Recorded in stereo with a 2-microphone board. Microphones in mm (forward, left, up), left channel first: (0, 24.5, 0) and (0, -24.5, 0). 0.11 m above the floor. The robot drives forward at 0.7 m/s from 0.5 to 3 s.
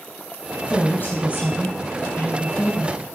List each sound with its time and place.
0.7 s a woman speaking: 40° left (ahead or behind), 3 m; by 3.0 s 50° left (ahead or behind), 2.5 m